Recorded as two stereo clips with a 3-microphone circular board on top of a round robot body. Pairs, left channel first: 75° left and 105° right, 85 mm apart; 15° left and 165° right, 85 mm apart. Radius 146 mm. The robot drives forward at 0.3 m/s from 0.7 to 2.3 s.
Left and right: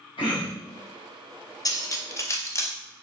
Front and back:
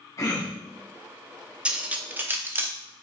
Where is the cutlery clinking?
115° left, 0.7 m; by 2.7 s 130° left, 0.8 m.